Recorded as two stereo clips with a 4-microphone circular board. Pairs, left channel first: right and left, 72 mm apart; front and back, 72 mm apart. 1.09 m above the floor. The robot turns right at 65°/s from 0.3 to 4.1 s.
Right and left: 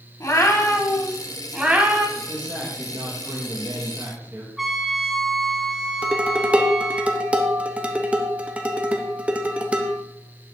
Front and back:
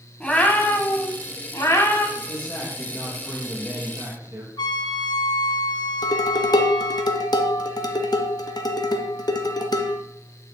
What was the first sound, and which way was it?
A cat meowing, 75° right.